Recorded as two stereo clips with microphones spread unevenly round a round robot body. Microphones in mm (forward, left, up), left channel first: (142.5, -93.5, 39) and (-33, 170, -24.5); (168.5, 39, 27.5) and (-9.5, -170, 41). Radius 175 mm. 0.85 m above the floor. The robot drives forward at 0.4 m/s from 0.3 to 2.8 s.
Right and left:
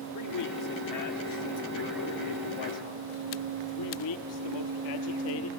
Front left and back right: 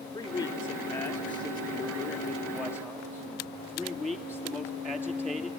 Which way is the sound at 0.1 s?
30° right.